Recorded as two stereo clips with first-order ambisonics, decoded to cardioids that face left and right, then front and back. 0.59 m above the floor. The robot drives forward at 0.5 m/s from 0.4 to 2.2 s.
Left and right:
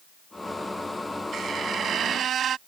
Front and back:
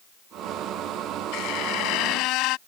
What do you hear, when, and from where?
1.3 s a squeak: 25° right; by 2.6 s 30° right